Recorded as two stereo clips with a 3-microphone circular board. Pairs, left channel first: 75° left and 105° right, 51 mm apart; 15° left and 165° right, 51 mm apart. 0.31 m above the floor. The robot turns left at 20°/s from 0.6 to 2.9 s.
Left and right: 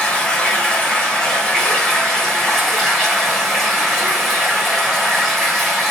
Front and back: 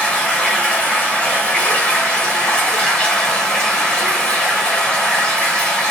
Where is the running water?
45° left, 0.9 m; by 5.9 s 5° right, 0.9 m.